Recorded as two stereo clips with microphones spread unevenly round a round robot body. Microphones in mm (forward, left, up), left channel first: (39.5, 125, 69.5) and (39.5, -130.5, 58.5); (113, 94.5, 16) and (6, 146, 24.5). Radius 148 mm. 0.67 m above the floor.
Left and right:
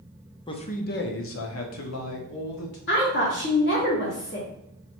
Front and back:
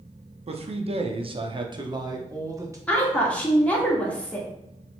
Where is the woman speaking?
50° left, 1.5 m.